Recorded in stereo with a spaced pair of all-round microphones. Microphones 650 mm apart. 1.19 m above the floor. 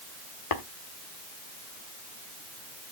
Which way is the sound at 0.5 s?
65° left (ahead or behind).